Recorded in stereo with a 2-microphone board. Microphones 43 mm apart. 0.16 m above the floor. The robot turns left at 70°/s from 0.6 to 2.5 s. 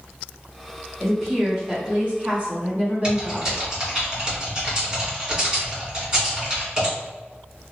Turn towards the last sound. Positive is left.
turn(degrees=-20)  # may be behind; listen again after turning